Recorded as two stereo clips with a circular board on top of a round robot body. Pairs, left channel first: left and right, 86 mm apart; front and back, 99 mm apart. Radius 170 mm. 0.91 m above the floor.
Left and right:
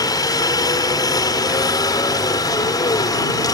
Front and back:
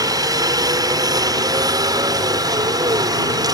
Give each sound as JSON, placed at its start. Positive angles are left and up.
{"t": 0.0, "sound": "a helicopter", "azimuth_deg": 130}